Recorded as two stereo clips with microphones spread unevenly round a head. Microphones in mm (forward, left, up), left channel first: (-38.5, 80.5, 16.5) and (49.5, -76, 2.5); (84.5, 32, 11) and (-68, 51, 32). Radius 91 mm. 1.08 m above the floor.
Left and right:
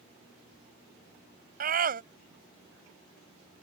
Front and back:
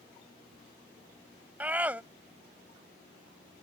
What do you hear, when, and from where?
1.6 s a scream: 105° right